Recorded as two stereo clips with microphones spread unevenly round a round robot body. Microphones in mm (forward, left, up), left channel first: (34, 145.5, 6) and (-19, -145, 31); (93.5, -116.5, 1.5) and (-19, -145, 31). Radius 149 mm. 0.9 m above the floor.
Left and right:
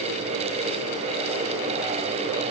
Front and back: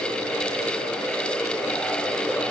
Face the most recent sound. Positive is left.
No sound to turn to.